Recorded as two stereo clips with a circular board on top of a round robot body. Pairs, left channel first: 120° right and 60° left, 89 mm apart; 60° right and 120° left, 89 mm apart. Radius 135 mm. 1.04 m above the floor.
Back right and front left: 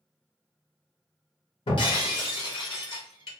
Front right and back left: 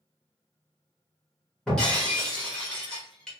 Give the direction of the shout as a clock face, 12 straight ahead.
No shout in this recording.